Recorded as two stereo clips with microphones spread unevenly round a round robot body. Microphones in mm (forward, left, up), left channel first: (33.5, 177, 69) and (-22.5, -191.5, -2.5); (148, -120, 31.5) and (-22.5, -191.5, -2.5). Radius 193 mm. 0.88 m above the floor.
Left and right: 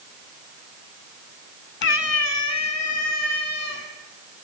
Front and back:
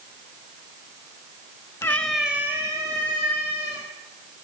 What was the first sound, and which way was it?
A cat meowing, 75° left.